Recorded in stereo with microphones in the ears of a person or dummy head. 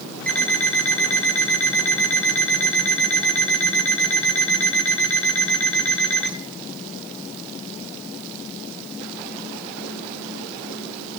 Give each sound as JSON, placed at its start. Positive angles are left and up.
{"t": 0.3, "sound": "an alarm clock", "side_deg": 5, "distance_m": 1.2}